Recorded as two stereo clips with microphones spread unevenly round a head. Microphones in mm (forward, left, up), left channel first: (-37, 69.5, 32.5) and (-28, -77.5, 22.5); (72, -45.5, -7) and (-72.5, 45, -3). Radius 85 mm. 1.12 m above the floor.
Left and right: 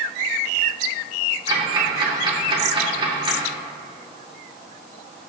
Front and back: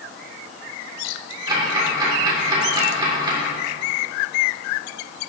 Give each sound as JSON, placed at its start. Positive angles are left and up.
{"t": 1.5, "sound": "ticking", "azimuth_deg": -145, "distance_m": 2.5}